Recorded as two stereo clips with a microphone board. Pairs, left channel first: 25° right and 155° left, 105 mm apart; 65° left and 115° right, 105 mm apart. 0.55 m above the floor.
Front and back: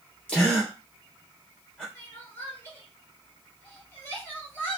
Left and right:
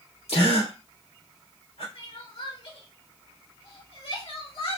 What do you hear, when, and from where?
0.3 s a gasp: 60° left, 3.5 m
1.9 s crying: 50° left, 2.5 m